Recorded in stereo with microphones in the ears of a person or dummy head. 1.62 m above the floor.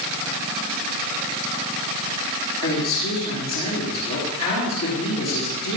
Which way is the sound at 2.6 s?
25° left (ahead or behind).